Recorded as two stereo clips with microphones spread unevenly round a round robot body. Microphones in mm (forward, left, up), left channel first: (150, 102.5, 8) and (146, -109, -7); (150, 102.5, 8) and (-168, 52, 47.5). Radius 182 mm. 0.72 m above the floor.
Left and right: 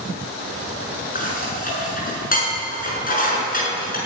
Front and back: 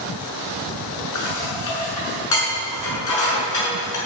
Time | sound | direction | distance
1.1 | dishes clattering | 40° left | 6.5 m